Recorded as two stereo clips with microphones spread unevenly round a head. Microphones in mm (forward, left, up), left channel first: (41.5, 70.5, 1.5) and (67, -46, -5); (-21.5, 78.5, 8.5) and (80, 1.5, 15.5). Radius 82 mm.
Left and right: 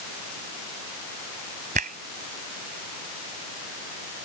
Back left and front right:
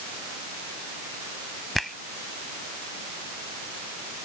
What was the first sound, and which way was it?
A finger snap, 125° right.